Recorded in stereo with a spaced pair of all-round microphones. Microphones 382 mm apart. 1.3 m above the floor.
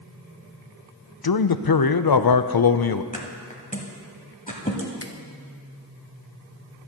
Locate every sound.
1.2 s a man speaking: 70° left (ahead or behind), 0.5 m
3.1 s a thud: 20° left (ahead or behind), 1.6 m
5.0 s a finger snap: 35° left (ahead or behind), 0.7 m